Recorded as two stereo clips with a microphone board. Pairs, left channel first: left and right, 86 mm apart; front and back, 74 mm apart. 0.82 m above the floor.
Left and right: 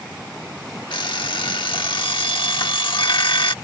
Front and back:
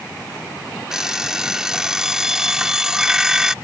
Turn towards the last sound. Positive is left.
turn(degrees=100)